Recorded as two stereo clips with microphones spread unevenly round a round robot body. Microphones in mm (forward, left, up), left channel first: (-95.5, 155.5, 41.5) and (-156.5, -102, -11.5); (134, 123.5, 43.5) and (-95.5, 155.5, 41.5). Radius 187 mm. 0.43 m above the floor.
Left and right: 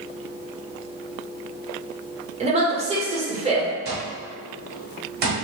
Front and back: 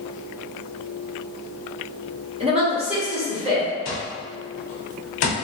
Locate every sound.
2.4 s a woman speaking: 135° right, 1.3 m
3.9 s an alarm clock: 50° right, 0.7 m